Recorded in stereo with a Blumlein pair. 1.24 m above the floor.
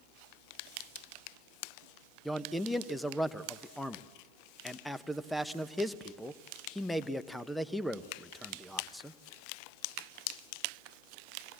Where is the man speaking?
5° left, 1.0 m.